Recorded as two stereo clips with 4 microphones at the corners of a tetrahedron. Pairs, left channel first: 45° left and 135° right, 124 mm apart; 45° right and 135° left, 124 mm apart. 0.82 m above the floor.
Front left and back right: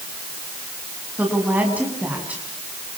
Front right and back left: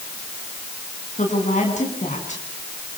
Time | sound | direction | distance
1.2 | a woman speaking | 55° right | 6 m